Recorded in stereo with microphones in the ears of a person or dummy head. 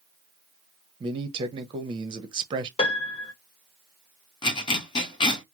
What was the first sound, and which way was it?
A man speaking, 25° right (ahead or behind).